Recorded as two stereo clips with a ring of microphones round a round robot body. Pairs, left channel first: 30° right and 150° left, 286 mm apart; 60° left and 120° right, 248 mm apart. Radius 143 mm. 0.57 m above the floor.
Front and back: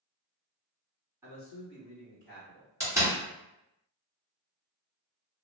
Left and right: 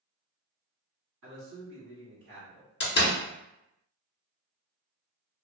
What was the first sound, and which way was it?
A man speaking, 130° right.